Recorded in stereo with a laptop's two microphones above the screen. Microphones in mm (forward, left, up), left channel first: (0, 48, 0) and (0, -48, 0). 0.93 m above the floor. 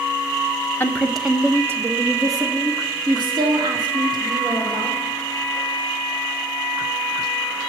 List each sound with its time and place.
0.8 s a woman speaking: 25° left (ahead or behind), 0.6 m; by 5.0 s 60° right (ahead or behind), 3 m